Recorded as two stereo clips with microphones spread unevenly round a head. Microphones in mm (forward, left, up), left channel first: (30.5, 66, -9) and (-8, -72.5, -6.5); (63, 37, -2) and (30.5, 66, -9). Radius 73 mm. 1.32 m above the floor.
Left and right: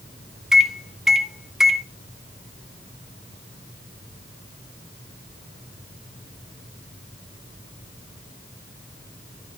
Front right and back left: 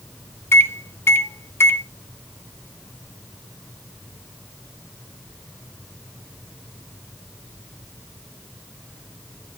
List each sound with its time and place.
0.5 s a microwave: 20° right, 0.9 m